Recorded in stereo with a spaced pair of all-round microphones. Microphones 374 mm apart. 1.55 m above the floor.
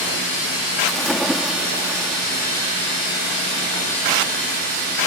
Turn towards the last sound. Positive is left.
turn(degrees=0)  # may be behind; listen again after turning